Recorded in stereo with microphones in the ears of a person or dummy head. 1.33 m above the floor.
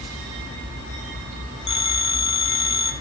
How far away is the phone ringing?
About 1.6 m.